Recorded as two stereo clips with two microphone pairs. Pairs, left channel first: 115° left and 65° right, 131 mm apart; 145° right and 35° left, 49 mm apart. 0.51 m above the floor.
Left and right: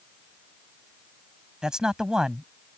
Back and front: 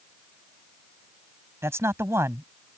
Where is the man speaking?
20° left.